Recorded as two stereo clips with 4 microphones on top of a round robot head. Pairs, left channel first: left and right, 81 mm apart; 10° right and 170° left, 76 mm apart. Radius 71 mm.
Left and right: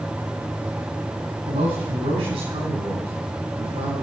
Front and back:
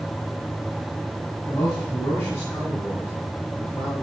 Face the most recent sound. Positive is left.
turn(degrees=-80)